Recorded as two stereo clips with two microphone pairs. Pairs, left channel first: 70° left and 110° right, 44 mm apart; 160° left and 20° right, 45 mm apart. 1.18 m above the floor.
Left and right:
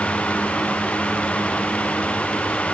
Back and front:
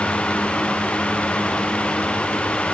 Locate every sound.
Only background noise.